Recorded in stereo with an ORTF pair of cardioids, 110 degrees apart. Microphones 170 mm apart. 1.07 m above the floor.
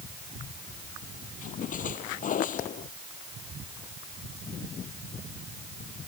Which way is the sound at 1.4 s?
50° left.